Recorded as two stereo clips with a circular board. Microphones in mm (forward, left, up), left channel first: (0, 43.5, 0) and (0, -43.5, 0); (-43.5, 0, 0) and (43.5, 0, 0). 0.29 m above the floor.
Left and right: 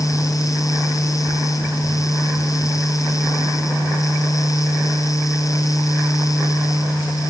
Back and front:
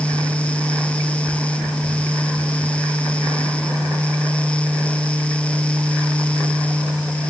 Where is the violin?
No violin in this recording.